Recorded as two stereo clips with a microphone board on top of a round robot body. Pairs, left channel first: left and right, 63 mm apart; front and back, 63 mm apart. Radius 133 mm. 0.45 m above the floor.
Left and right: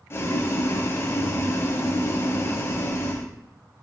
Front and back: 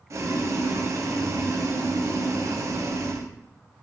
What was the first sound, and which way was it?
Boiling, 140° left.